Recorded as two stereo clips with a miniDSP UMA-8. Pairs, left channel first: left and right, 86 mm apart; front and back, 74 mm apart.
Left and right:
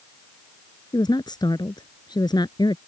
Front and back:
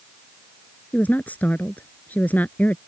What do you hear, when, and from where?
0.9 s a woman speaking: 65° left